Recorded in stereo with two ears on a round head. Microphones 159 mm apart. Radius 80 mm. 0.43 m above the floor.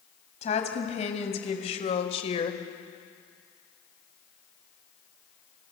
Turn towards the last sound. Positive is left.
turn(degrees=35)  # may be behind; listen again after turning